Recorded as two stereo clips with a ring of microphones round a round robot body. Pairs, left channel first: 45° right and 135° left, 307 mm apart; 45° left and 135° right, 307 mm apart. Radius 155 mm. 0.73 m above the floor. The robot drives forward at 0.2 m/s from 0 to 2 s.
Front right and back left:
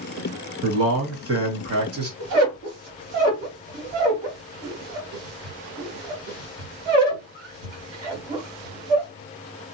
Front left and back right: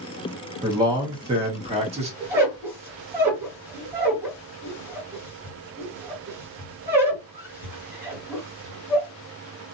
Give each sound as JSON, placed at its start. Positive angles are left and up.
{"t": 0.6, "sound": "a man speaking", "azimuth_deg": 155, "distance_m": 1.1}
{"t": 2.2, "sound": "a squeak", "azimuth_deg": 145, "distance_m": 1.7}